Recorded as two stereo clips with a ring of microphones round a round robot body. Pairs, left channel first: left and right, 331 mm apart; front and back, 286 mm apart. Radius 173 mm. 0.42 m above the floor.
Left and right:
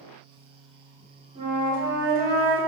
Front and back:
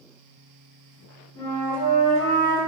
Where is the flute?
25° right, 1.8 m.